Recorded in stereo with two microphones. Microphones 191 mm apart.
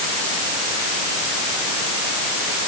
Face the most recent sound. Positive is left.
No sound to turn to.